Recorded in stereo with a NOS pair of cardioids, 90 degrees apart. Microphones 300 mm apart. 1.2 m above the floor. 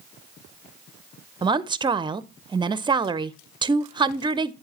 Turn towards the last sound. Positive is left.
turn(degrees=-15)